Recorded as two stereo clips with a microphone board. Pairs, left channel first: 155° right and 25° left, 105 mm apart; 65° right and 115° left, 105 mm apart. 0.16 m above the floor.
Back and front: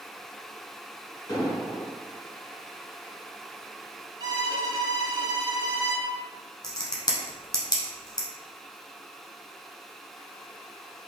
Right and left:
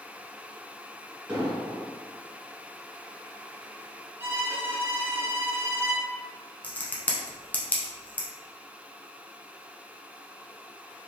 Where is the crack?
135° right, 0.8 m.